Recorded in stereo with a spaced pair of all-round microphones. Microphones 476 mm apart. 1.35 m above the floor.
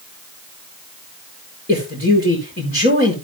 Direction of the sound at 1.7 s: 20° left (ahead or behind).